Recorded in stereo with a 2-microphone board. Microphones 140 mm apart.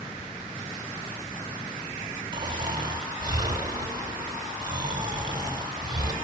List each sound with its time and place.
2.3 s snoring: 30° right (ahead or behind), 2 m